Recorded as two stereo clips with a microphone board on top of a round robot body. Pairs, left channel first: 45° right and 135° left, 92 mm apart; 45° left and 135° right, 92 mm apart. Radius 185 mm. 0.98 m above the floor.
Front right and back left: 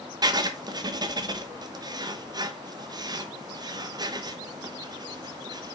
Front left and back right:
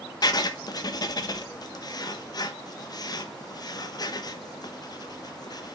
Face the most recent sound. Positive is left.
turn(degrees=90)